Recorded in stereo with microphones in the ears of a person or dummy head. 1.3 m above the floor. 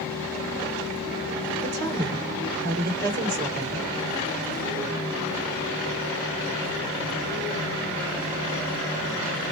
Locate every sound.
1.6 s a woman speaking: 45° right (ahead or behind), 4.5 m